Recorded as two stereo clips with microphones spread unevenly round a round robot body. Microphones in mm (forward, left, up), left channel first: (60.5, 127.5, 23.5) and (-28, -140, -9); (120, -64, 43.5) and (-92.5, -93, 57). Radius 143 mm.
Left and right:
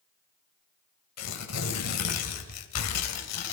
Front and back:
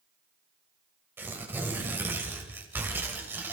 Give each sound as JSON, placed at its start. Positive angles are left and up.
{"t": 1.2, "sound": "tearing paper", "azimuth_deg": 105, "distance_m": 2.5}